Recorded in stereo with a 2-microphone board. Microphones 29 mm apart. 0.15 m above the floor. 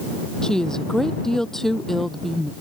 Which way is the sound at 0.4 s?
25° left (ahead or behind).